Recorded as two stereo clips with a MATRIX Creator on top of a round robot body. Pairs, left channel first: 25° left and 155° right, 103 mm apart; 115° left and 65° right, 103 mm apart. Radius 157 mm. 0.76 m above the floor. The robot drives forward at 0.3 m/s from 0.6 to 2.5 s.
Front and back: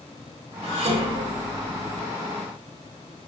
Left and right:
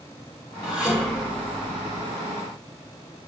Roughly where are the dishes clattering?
Behind right.